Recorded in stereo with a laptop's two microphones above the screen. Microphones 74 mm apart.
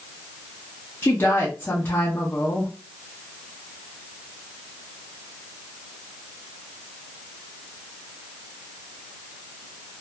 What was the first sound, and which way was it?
A woman speaking, 30° left (ahead or behind).